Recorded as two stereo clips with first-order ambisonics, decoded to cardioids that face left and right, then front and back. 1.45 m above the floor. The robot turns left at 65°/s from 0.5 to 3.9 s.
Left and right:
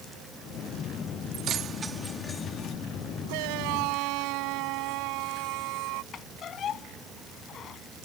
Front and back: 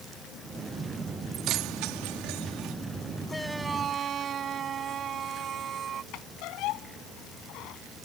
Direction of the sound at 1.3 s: 130° right.